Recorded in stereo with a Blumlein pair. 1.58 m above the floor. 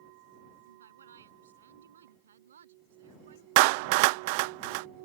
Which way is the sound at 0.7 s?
70° right.